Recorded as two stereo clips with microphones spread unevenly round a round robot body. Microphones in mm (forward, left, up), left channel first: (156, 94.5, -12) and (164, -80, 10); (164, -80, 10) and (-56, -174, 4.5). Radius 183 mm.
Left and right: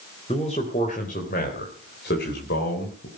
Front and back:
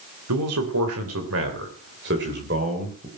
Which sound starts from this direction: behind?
A man speaking, at 0.3 s.